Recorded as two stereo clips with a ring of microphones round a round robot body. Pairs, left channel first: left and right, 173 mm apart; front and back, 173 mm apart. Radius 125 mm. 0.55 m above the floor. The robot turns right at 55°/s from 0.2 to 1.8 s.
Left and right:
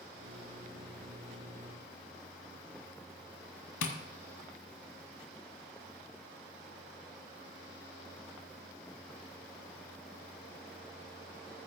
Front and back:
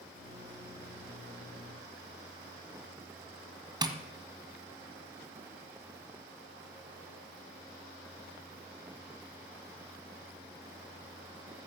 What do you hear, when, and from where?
3.8 s tapping: 115° left, 1.5 m